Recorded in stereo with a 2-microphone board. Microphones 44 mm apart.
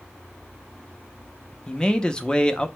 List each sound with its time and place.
1.7 s a man speaking: 20° left (ahead or behind), 0.6 m